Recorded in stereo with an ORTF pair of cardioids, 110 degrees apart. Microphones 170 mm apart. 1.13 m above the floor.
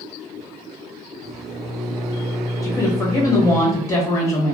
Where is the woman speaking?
20° left, 1.0 m.